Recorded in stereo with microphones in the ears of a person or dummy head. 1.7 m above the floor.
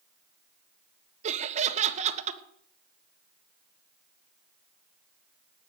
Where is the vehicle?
No vehicle in this recording.